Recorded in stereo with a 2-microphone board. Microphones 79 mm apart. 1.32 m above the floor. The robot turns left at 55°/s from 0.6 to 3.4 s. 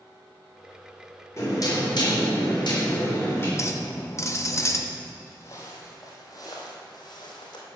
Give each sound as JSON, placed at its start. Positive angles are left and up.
{"t": 1.4, "sound": "knocking", "azimuth_deg": 140, "distance_m": 3.5}
{"t": 3.6, "sound": "a clink", "side_deg": 35, "distance_m": 0.8}
{"t": 5.3, "sound": "footsteps", "side_deg": 30, "distance_m": 2.5}